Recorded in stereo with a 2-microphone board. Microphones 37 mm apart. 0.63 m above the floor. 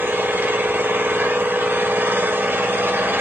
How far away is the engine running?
About 1.8 m.